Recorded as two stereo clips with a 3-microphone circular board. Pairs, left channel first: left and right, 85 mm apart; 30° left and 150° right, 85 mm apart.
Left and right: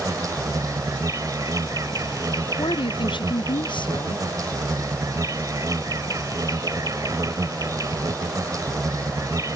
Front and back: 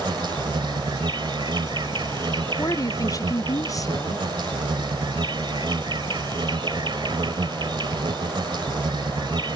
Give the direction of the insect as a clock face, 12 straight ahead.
4 o'clock.